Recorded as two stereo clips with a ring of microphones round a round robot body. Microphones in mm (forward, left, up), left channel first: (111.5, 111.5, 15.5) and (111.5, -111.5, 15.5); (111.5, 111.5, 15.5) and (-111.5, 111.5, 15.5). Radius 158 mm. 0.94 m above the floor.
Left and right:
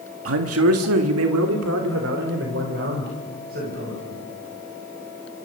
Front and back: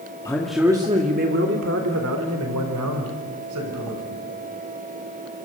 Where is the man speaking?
80° right, 1.9 m; by 4.2 s 155° right, 6 m.